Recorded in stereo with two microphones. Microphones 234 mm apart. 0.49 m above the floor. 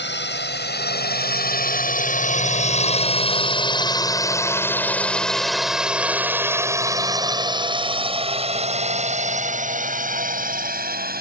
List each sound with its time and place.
0.0 s a drone: 50° left (ahead or behind); by 11.2 s 40° right (ahead or behind)